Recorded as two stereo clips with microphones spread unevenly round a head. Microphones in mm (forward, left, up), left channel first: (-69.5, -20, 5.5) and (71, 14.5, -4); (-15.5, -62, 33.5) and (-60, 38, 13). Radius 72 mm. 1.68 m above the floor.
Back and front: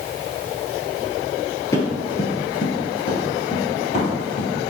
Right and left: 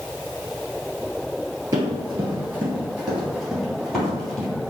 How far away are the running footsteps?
About 1.8 m.